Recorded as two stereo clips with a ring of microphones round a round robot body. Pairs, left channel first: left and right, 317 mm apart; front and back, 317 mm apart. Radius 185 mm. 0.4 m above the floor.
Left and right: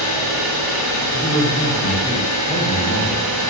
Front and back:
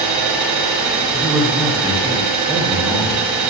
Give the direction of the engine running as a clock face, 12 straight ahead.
6 o'clock.